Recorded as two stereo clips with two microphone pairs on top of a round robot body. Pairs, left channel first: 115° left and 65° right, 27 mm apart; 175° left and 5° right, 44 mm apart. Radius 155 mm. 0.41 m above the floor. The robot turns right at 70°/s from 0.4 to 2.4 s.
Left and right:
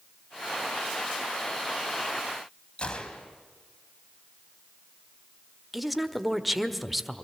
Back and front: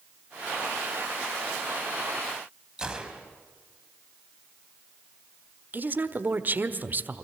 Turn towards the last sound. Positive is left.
turn(degrees=30)